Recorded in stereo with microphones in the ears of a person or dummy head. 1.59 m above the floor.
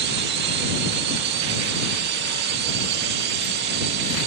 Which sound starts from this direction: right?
A drone, at 0.0 s.